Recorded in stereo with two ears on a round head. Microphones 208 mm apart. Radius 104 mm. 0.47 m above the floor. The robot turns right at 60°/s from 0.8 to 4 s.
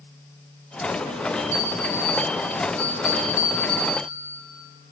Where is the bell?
30° left, 9 m; by 4.0 s straight behind, 9 m.